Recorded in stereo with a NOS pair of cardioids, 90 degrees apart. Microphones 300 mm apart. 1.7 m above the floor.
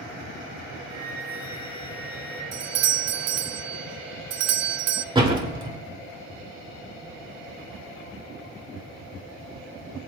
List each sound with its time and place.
0.9 s a flute: 55° right, 2.5 m
2.5 s a doorbell: 55° right, 0.5 m
5.2 s a door slam: 15° right, 2.5 m